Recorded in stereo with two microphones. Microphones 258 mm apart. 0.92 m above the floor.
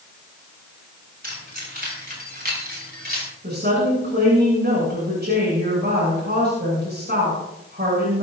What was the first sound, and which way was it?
Keys jangling, 35° right (ahead or behind).